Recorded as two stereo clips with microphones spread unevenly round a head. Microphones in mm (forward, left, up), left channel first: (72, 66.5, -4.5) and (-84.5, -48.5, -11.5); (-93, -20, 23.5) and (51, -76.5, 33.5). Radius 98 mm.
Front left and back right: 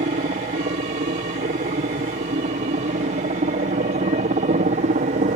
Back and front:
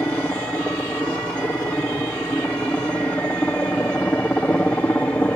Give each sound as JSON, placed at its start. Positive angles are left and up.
{"t": 0.0, "sound": "a helicopter", "azimuth_deg": -125}